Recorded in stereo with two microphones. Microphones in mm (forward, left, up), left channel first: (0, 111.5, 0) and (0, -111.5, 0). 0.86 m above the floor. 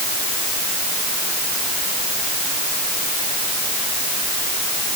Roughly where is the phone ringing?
No phone ringing in this recording.